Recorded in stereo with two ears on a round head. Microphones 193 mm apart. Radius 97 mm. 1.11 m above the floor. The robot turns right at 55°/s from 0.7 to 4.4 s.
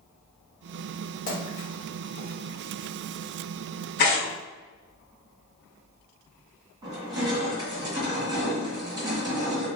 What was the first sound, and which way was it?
A splash, 35° left (ahead or behind).